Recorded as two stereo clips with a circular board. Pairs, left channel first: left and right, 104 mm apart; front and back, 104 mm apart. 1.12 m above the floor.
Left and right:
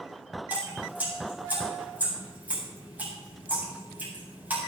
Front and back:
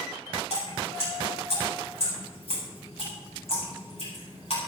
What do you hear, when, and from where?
0.5 s dripping: 15° right, 8 m